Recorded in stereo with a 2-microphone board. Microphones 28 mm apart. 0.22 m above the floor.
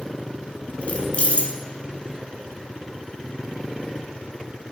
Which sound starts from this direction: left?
Keys jangling, at 0.8 s.